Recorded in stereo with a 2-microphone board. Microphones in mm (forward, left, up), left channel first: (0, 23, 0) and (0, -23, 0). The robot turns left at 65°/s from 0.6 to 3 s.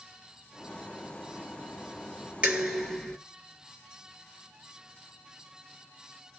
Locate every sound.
2.4 s dishes clattering: 150° right, 1.6 m; by 3.2 s 175° left, 1.6 m